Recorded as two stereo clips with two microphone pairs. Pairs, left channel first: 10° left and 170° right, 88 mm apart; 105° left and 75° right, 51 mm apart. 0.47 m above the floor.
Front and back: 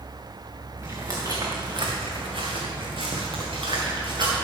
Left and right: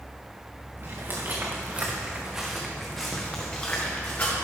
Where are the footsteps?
110° right, 2.5 m; by 4.3 s 160° left, 3 m.